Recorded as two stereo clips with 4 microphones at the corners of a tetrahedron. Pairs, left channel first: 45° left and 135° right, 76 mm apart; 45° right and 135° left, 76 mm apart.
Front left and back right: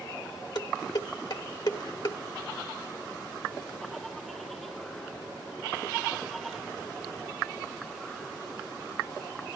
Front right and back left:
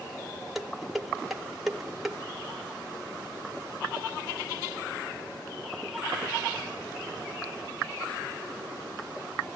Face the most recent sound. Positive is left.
turn(degrees=50)